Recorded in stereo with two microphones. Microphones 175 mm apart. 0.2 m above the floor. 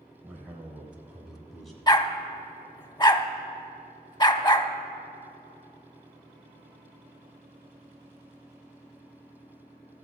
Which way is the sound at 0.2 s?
10° right (ahead or behind).